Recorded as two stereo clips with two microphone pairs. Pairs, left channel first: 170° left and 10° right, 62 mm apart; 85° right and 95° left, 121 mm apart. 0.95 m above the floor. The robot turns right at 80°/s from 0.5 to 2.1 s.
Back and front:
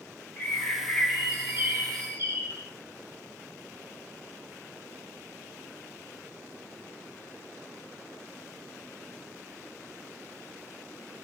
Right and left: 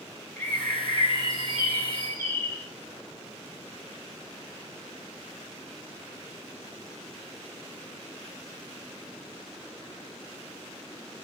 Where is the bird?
155° right, 1.1 m; by 2.7 s 25° right, 1.1 m.